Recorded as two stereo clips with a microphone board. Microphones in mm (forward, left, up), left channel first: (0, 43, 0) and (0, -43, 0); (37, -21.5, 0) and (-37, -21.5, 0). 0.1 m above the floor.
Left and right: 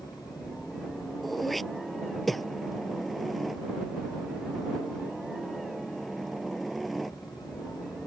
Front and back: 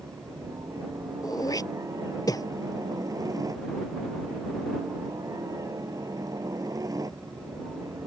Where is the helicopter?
Straight behind.